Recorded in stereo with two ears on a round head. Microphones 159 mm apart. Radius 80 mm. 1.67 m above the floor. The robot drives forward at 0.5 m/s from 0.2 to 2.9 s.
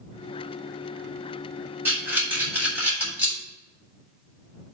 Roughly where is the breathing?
Centre.